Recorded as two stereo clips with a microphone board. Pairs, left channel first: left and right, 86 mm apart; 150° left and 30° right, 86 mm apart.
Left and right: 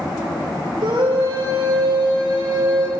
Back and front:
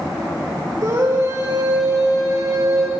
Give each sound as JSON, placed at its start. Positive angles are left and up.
{"t": 0.8, "sound": "a scream", "azimuth_deg": -80, "distance_m": 5.5}